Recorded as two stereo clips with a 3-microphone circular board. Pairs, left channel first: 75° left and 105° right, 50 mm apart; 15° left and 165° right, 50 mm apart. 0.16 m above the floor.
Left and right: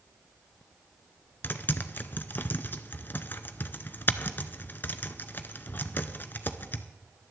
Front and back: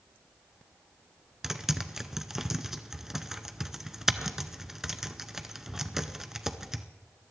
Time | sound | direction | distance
1.4 | typing on a keyboard | 115° left | 0.7 m